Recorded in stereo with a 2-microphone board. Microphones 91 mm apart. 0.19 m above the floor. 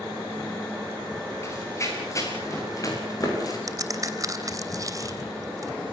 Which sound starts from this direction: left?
Running footsteps, at 1.4 s.